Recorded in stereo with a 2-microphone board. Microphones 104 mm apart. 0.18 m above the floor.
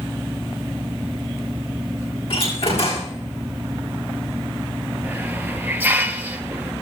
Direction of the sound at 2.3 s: 65° left (ahead or behind).